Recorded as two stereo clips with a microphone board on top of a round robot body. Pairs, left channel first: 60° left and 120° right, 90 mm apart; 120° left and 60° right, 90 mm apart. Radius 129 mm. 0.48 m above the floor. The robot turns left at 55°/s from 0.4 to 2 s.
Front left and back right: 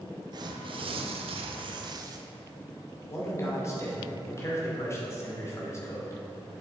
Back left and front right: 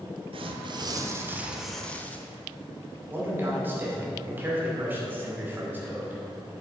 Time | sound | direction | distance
0.3 | tearing paper | 80° right | 0.8 m
3.1 | a man speaking | 5° left | 2.5 m